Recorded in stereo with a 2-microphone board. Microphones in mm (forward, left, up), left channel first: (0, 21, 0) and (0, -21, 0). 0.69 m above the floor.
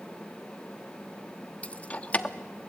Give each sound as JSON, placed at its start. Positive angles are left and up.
{"t": 1.6, "sound": "keys jangling", "side_deg": 30, "distance_m": 0.8}